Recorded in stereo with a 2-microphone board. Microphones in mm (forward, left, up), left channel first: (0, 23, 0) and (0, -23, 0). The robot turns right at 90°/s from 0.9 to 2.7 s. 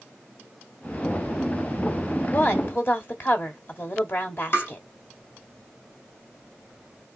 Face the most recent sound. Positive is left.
turn(degrees=55)  # may be behind; listen again after turning